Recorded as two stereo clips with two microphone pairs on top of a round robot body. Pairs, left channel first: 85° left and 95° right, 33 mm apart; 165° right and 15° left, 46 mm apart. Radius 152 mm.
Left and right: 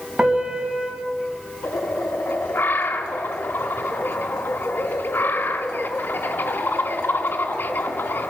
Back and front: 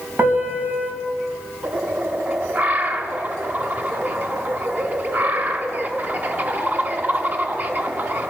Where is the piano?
35° right, 2 m.